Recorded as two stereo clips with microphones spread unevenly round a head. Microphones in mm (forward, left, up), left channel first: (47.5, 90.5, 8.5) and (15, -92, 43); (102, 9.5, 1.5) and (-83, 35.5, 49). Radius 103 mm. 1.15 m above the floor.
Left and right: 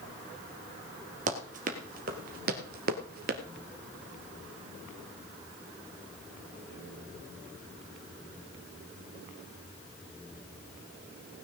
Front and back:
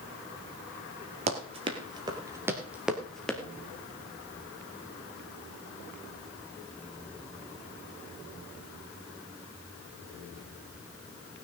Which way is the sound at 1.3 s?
140° right.